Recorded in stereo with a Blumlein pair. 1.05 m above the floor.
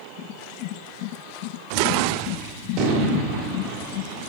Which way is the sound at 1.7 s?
40° right.